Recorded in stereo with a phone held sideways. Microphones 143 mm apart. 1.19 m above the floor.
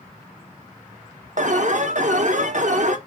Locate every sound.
1.4 s an alarm: 60° right (ahead or behind), 0.7 m